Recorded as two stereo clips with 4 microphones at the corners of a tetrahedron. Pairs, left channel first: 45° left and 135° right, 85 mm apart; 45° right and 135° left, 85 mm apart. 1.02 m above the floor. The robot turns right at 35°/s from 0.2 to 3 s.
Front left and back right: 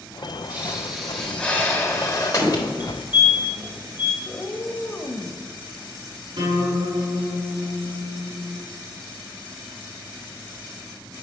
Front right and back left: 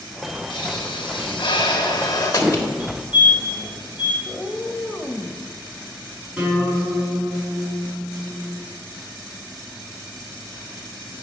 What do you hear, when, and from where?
0.5 s a pop: 65° right, 1.4 m; by 2.7 s 15° left, 1.4 m
2.8 s a fire alarm: straight behind, 1.7 m; by 4.2 s 175° right, 1.7 m
4.2 s a cat meowing: 35° left, 0.8 m
6.4 s a guitar: 150° right, 4 m